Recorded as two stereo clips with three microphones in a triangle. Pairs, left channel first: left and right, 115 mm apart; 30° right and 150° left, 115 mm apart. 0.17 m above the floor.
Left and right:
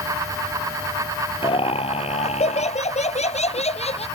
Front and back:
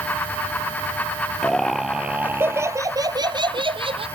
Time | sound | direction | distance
1.4 | laughter | 55° left | ?